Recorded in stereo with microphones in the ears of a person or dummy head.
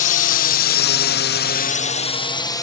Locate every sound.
0.0 s a drone: 40° left (ahead or behind); by 2.6 s 15° left (ahead or behind)